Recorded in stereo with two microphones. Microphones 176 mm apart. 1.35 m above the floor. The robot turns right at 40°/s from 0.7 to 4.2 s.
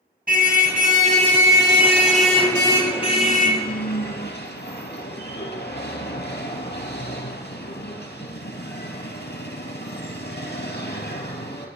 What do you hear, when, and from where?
0.3 s a car horn: 60° right, 4 m; by 11.7 s 80° left, 4 m